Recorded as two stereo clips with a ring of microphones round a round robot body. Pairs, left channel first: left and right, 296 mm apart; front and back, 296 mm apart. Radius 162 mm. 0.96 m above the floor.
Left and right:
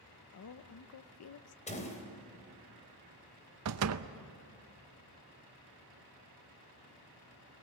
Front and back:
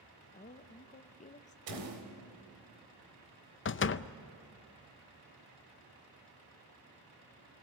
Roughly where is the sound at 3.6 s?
Ahead right.